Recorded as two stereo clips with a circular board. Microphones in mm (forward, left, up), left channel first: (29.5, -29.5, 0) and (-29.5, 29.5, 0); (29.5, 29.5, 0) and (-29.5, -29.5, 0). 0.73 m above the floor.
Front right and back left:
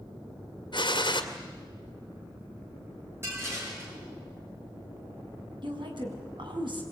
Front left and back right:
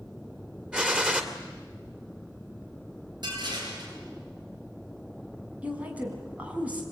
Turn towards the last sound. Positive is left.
turn(degrees=150)